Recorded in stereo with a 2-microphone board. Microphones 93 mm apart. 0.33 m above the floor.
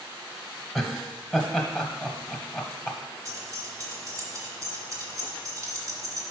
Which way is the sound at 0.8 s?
Centre (ahead or behind).